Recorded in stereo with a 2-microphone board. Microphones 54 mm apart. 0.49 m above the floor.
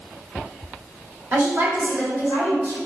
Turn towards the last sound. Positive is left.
turn(degrees=-60)  # may be behind; listen again after turning